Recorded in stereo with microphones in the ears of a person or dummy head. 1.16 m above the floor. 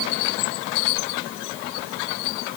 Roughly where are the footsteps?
No footsteps in this recording.